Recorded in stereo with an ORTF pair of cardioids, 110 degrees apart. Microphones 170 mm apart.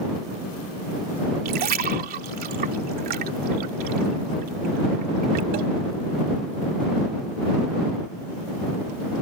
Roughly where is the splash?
Ahead right.